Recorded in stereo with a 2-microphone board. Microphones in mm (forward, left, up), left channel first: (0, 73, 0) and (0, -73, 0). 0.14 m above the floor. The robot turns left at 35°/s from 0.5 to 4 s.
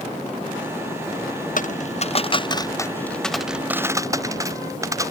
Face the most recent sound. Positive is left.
turn(degrees=-20)  # may be behind; listen again after turning